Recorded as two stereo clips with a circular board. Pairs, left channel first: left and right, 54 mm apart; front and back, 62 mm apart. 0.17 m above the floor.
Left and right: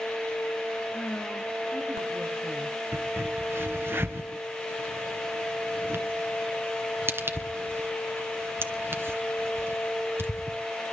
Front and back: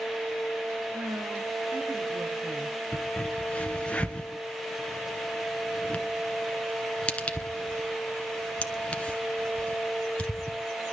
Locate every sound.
0.9 s a woman speaking: 155° left, 2.5 m; by 2.8 s 175° right, 4.5 m
2.9 s a crack: 65° right, 1.9 m